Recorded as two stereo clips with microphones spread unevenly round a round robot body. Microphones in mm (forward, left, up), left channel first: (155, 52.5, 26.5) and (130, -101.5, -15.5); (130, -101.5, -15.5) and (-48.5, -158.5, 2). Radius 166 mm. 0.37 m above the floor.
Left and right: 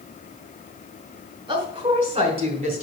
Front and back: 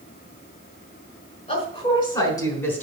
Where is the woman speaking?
40° right, 5 m; by 2.8 s 65° right, 3.5 m.